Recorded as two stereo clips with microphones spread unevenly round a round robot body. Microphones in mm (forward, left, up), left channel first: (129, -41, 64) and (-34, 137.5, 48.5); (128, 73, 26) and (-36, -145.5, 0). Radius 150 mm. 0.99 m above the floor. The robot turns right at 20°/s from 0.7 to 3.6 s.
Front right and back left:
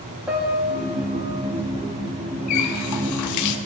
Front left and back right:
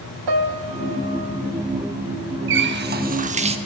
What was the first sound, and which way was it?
A piano, 145° right.